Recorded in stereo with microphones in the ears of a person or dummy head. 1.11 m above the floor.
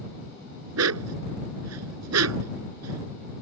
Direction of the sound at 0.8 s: 85° right.